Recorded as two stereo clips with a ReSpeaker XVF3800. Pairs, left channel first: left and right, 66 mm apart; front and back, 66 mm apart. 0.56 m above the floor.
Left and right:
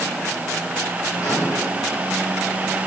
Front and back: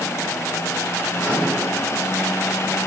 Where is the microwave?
50° left, 7 m.